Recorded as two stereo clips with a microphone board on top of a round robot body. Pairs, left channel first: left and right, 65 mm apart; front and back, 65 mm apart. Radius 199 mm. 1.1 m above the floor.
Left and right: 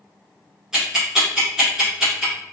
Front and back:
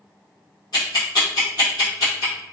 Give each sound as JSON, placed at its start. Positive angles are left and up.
{"t": 0.7, "sound": "ticking", "azimuth_deg": -10, "distance_m": 0.5}